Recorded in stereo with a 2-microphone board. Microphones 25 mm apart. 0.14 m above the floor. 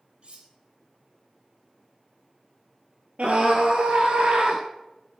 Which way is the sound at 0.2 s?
45° right (ahead or behind).